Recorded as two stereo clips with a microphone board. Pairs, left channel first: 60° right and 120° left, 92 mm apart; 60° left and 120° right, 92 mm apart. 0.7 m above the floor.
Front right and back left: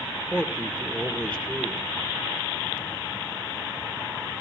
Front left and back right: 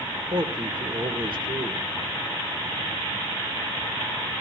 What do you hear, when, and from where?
0.3 s a man speaking: 135° right, 2 m